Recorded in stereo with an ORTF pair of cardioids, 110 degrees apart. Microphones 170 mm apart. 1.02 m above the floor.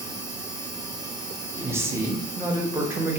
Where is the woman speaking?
15° right, 0.6 m.